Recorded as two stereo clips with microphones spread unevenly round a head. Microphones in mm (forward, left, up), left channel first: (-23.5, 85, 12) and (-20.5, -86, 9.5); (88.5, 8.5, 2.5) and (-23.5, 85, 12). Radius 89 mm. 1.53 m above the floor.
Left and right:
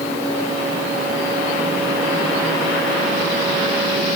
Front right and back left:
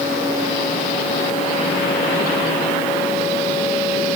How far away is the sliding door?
I don't hear a sliding door.